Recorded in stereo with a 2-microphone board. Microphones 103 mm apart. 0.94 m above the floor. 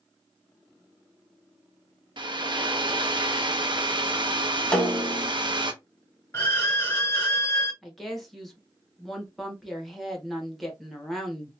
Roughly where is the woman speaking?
Centre.